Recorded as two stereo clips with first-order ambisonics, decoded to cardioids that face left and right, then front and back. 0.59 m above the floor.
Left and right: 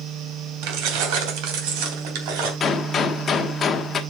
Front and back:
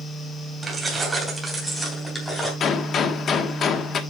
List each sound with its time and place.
0.6 s keys jangling: 105° right, 2.5 m; by 2.5 s 80° right, 3.5 m
2.6 s a gunshot: 35° left, 1.0 m